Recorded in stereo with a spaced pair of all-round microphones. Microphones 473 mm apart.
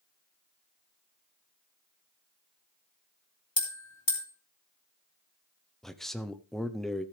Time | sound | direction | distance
3.6 | a bell | 65° left (ahead or behind) | 2.5 m
5.8 | a man speaking | centre (ahead or behind) | 0.7 m